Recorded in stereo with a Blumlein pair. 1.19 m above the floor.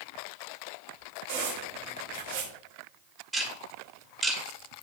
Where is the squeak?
45° right, 1.3 m.